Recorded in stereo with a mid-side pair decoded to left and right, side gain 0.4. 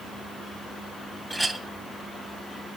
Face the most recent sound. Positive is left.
turn(degrees=0)